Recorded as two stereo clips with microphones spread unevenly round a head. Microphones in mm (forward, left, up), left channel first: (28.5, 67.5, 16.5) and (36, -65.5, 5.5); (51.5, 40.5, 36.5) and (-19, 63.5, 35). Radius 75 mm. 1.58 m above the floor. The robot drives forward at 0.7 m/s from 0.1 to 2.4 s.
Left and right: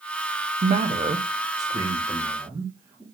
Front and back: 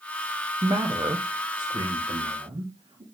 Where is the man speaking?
135° right, 0.9 m; by 3.0 s 160° right, 2 m.